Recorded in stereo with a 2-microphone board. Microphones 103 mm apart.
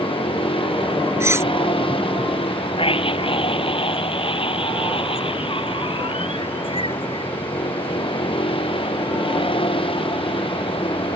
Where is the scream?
60° left (ahead or behind).